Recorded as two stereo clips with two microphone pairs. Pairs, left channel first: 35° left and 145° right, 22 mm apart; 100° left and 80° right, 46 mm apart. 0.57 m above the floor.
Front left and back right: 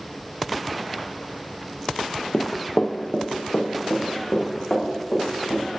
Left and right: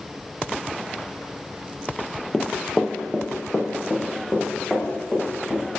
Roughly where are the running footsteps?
Ahead.